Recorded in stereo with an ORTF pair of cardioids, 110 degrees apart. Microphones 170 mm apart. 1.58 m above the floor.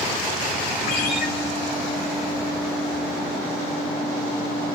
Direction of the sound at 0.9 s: 65° left.